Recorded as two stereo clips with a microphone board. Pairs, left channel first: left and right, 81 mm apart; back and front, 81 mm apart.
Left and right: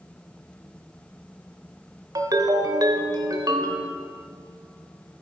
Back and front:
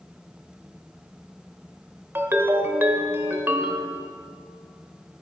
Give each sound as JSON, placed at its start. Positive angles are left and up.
{"t": 2.1, "sound": "a ringtone", "azimuth_deg": -60, "distance_m": 1.1}